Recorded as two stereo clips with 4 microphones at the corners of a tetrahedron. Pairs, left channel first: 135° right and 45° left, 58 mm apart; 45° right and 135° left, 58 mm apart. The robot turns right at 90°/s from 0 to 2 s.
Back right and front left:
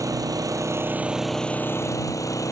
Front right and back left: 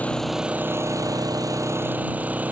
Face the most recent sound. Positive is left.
turn(degrees=-160)